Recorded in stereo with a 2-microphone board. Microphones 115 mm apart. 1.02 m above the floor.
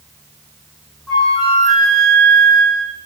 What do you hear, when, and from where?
1.1 s a flute: 5° left (ahead or behind), 6.5 m